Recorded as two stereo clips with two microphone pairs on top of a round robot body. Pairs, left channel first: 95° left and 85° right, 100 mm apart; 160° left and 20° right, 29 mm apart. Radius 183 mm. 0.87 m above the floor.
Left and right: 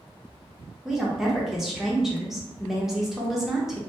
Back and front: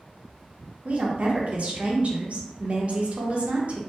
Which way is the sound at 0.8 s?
Straight ahead.